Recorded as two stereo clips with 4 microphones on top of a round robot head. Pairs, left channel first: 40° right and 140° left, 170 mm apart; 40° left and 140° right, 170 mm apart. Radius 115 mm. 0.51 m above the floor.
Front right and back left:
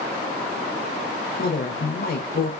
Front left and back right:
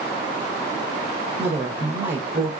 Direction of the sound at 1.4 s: 80° right.